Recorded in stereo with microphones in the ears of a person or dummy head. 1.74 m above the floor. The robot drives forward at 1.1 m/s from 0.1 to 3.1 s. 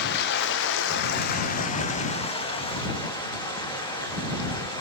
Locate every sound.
0.0 s running water: 60° left (ahead or behind), 1.4 m; by 4.8 s 25° left (ahead or behind), 3 m